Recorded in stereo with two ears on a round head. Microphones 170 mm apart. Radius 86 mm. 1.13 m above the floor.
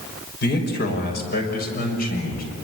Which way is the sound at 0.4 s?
60° left (ahead or behind).